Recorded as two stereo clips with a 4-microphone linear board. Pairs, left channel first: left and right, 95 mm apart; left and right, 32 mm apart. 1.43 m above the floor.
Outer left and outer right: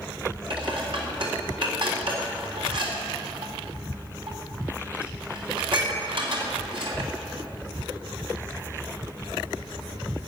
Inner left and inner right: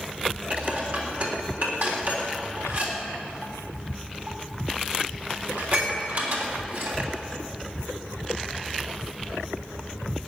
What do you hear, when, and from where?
0.5 s dishes clattering: 60° right (ahead or behind), 3.5 m